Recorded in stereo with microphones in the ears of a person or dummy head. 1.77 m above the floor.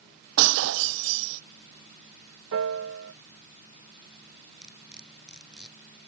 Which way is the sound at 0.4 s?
70° right (ahead or behind).